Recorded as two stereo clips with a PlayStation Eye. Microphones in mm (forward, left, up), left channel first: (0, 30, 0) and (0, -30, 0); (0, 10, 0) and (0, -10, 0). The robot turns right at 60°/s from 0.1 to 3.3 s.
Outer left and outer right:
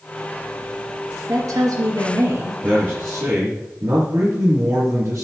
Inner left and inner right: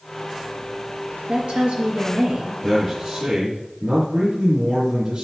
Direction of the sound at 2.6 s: 155° right.